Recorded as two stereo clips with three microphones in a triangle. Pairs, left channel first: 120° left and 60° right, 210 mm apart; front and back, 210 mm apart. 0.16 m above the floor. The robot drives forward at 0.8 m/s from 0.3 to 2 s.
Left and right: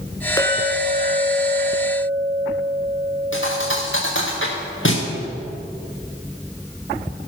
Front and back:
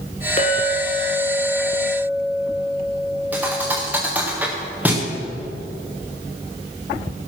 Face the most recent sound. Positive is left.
turn(degrees=100)